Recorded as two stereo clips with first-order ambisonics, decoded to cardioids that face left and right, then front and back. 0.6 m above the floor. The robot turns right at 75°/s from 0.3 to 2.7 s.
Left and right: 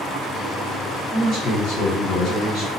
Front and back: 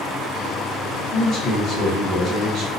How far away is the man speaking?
About 1.0 m.